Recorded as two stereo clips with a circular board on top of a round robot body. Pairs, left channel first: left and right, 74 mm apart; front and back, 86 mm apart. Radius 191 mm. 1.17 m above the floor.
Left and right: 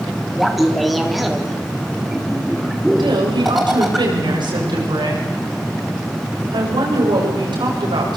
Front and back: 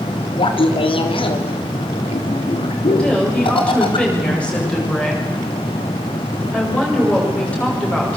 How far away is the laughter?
About 3.5 m.